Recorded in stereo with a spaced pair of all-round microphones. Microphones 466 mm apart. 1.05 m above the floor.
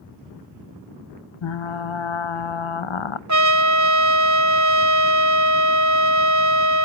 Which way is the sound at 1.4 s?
80° left.